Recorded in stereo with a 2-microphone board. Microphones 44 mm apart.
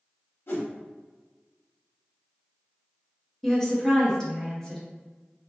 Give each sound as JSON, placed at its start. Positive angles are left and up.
{"t": 0.5, "sound": "a whoosh", "side_deg": 65, "distance_m": 0.8}
{"t": 3.4, "sound": "a woman speaking", "side_deg": 10, "distance_m": 0.7}